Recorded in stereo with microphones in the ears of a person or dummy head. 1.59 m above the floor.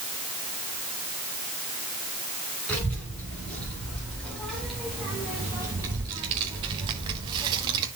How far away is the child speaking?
About 3 m.